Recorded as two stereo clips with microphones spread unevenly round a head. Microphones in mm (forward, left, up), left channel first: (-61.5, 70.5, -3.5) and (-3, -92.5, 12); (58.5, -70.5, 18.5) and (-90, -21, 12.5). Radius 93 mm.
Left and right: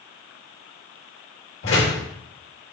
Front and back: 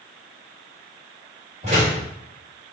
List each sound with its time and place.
1.6 s a door slam: 105° left, 3.5 m